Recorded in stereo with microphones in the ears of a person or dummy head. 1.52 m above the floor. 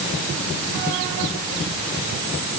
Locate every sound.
Only background noise.